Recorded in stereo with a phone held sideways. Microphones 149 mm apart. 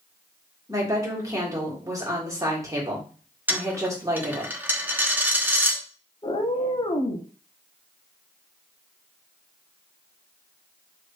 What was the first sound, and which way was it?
A woman speaking, 20° right (ahead or behind).